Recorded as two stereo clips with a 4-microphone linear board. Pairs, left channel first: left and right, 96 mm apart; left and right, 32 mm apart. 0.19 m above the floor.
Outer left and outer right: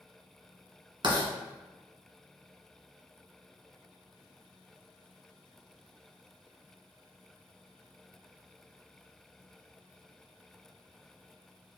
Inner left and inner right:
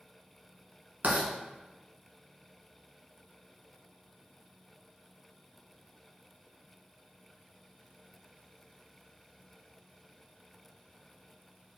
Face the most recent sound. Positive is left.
turn(degrees=-55)  # may be behind; listen again after turning